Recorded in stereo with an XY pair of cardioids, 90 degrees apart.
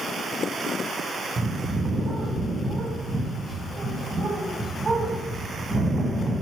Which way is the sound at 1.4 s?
40° right.